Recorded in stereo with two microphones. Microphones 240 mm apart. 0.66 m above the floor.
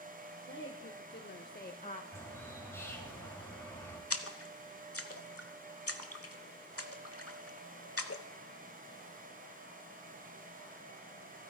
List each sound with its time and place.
0.5 s a woman speaking: 55° left (ahead or behind), 1.4 m; by 2.0 s 25° left (ahead or behind), 0.7 m
2.1 s a bird: 10° left (ahead or behind), 3.5 m
4.1 s a splash: 75° left (ahead or behind), 1.0 m